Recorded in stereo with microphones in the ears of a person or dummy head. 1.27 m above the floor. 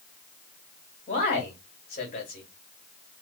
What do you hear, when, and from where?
1.1 s a man speaking: 35° left (ahead or behind), 2.5 m